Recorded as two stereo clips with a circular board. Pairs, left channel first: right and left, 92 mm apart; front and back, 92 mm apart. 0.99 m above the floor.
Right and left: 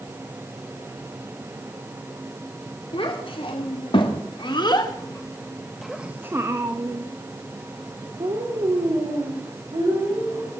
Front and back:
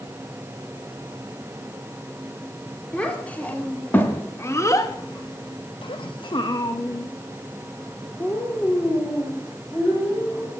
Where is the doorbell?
No doorbell in this recording.